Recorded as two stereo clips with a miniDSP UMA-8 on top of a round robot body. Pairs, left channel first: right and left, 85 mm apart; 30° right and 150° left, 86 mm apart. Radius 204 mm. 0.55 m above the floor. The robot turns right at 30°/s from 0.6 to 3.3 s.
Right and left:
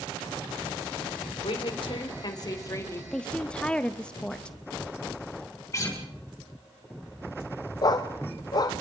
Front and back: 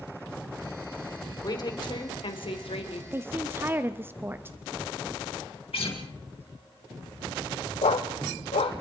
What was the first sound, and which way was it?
A woman speaking, 75° right.